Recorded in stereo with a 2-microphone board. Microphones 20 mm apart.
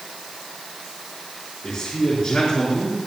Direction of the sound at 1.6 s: 70° left (ahead or behind).